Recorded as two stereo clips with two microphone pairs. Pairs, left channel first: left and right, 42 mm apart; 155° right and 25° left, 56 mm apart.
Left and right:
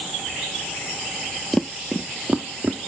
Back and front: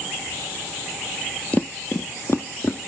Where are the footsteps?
170° left, 0.6 m; by 2.9 s 130° right, 1.7 m.